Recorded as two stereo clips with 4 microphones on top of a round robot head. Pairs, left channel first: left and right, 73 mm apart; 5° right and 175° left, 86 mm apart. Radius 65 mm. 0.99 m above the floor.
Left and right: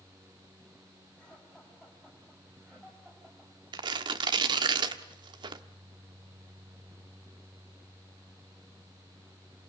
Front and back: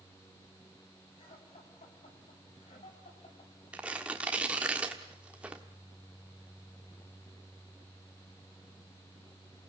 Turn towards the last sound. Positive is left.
turn(degrees=-105)